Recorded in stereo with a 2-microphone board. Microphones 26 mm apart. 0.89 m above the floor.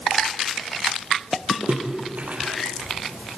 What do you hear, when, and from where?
1.7 s a splash: 75° right (ahead or behind), 4.5 m